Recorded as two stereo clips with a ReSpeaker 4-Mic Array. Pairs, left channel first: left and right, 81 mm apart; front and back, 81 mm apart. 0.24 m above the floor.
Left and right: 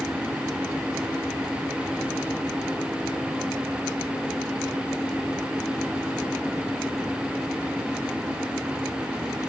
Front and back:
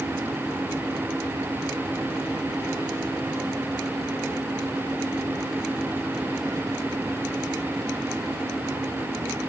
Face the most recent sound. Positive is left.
No sound to turn to.